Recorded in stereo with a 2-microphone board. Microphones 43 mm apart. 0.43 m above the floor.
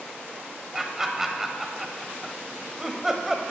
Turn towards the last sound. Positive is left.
turn(degrees=-10)  # may be behind; listen again after turning